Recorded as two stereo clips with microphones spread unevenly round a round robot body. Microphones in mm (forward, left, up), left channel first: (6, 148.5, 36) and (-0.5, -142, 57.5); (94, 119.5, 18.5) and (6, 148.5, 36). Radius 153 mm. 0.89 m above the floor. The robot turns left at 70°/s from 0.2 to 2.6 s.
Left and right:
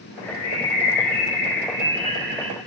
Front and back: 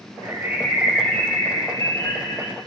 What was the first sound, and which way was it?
A bird, 105° left.